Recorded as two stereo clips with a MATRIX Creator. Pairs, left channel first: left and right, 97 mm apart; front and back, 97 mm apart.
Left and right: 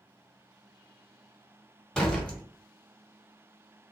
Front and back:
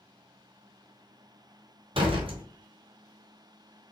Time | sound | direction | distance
1.9 | a door slam | 175° left | 2 m